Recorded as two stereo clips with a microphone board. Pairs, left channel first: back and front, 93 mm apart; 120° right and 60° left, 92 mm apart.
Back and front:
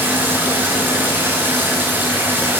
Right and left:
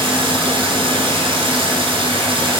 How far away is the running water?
About 3 m.